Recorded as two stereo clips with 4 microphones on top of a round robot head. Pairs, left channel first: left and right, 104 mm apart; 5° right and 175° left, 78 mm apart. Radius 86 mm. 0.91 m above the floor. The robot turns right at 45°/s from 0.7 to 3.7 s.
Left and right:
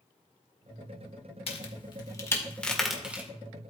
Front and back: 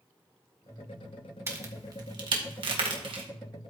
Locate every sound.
1.5 s a crack: 115° left, 1.7 m; by 3.2 s 165° right, 1.7 m